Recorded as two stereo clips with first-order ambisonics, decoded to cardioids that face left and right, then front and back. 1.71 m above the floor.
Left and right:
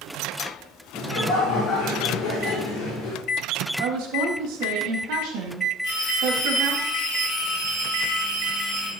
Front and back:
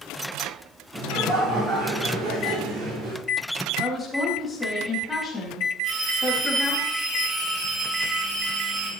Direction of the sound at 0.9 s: 130° left.